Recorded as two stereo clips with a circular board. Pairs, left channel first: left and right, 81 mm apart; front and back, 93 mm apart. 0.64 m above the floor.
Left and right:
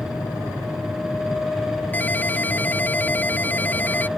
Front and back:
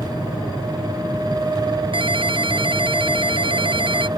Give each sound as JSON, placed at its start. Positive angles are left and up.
{"t": 1.9, "sound": "a ringtone", "azimuth_deg": 160}